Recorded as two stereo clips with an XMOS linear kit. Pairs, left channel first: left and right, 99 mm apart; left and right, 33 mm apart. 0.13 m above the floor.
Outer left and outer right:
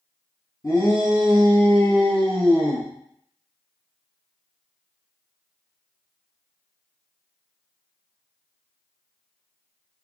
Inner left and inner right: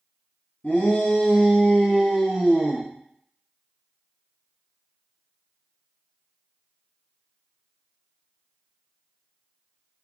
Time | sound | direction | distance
0.6 | a shout | 40° left (ahead or behind) | 2.0 m